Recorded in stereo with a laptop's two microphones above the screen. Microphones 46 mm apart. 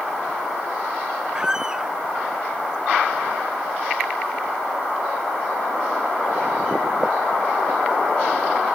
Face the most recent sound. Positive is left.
turn(degrees=-15)  # may be behind; listen again after turning